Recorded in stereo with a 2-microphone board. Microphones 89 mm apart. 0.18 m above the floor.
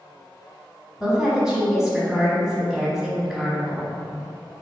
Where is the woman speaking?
5° right (ahead or behind), 1.0 m.